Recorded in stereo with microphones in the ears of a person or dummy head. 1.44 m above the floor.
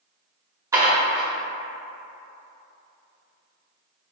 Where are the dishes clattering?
20° right (ahead or behind), 1.1 m.